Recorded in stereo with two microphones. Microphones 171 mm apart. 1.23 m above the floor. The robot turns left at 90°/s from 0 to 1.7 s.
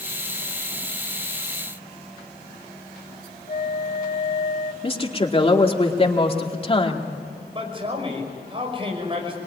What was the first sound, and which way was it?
A flute, 40° left (ahead or behind).